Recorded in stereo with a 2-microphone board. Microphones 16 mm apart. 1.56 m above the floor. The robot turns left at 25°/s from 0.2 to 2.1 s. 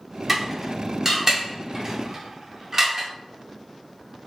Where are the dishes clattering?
5° right (ahead or behind), 0.5 m; by 3.1 s 20° right (ahead or behind), 0.5 m.